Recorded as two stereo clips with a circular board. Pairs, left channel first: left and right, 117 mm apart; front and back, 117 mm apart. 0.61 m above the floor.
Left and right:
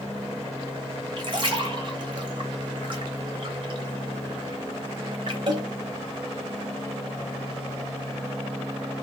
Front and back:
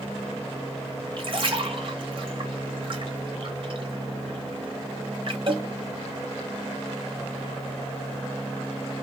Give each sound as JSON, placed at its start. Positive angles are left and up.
{"t": 1.2, "sound": "a splash", "azimuth_deg": -135, "distance_m": 1.0}